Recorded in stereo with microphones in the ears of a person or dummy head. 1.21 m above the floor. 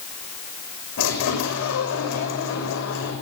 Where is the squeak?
80° left, 5.5 m.